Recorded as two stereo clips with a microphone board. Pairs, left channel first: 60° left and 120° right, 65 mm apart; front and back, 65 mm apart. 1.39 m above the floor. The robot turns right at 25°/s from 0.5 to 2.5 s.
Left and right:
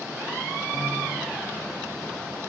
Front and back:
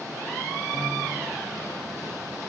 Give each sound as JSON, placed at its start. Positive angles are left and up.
{"t": 0.7, "sound": "a piano", "azimuth_deg": 25, "distance_m": 2.5}